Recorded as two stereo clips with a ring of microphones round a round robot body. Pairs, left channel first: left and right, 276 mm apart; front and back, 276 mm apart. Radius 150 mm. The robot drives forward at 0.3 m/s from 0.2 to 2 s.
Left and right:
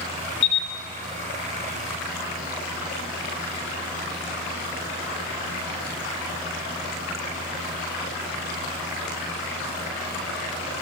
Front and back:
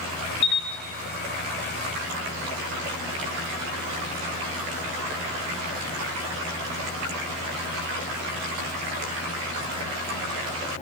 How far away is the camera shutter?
About 0.6 m.